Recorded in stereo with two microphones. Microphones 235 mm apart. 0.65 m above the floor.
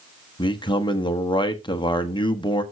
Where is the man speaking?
20° left (ahead or behind), 1.0 m.